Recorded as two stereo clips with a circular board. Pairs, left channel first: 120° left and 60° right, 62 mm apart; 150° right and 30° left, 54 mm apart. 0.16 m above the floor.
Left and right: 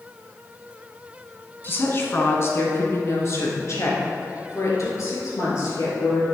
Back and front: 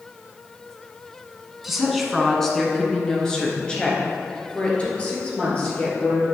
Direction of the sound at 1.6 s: 115° left.